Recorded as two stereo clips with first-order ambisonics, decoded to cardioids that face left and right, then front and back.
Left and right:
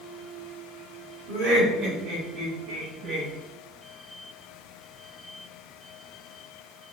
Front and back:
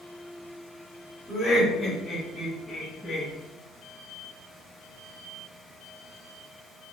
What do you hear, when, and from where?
1.3 s laughter: 90° right, 2.5 m; by 3.3 s 80° right, 1.2 m